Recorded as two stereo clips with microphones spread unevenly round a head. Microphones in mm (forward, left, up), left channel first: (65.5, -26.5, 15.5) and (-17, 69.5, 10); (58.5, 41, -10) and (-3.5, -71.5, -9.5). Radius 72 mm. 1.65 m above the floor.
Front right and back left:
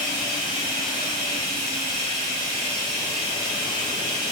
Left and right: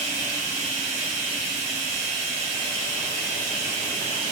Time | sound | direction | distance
0.0 | running water | 155° right | 0.9 m